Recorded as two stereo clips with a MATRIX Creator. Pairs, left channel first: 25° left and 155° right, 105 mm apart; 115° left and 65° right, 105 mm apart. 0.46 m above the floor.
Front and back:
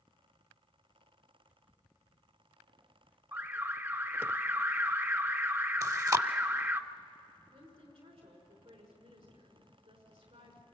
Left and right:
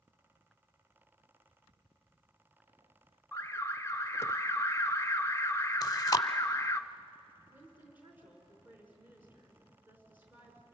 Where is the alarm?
150° left, 0.6 m.